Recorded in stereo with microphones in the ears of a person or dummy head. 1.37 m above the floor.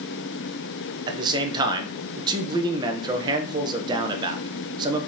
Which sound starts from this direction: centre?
A man speaking, at 1.1 s.